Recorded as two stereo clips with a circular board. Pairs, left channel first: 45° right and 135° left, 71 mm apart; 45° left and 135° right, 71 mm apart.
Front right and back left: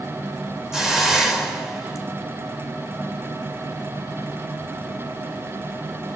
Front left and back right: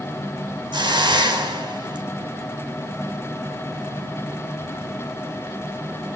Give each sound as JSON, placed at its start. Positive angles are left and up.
{"t": 0.7, "sound": "a hiss", "azimuth_deg": -140, "distance_m": 3.5}